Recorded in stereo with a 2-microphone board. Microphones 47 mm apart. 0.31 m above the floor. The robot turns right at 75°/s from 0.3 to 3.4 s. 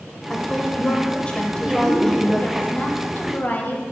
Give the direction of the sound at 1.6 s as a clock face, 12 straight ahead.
1 o'clock.